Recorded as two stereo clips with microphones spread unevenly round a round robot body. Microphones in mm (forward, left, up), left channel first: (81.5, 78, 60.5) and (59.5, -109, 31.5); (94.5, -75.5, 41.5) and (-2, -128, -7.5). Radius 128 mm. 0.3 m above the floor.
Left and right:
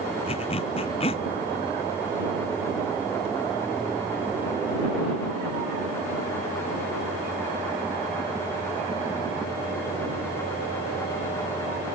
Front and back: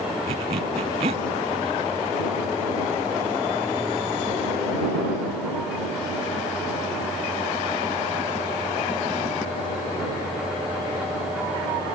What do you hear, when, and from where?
0.3 s a zipper: 150° left